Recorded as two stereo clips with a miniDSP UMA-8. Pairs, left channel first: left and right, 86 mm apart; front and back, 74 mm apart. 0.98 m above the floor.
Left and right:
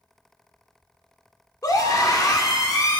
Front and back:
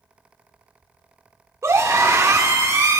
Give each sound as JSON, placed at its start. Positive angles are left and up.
{"t": 1.6, "sound": "a scream", "azimuth_deg": 135, "distance_m": 2.5}